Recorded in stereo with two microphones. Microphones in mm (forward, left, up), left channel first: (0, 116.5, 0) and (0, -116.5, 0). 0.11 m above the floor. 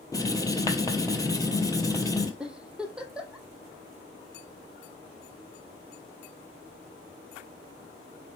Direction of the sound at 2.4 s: 5° right (ahead or behind).